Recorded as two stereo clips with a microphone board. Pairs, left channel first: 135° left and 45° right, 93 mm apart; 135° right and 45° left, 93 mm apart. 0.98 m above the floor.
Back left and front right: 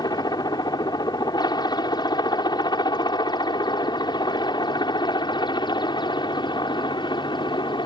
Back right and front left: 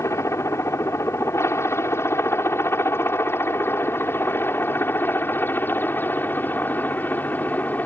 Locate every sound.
0.0 s a helicopter: 170° left; by 7.9 s 155° left